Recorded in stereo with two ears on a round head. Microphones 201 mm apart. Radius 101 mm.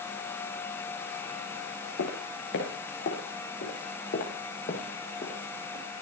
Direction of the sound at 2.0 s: 60° left (ahead or behind).